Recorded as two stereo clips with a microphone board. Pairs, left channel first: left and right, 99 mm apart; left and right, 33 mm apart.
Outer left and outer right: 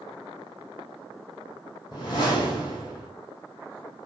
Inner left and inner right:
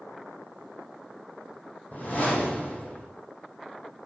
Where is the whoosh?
40° left (ahead or behind), 3 m.